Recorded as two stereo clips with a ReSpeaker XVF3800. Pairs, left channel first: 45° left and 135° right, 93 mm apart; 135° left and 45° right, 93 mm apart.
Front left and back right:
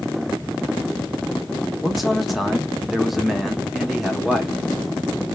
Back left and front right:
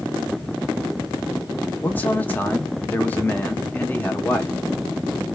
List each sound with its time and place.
1.8 s a man speaking: 140° left, 1.0 m